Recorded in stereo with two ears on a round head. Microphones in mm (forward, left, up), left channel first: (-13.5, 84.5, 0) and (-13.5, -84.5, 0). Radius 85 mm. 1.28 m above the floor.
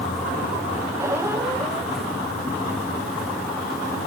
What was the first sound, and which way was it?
A squeak, 15° right (ahead or behind).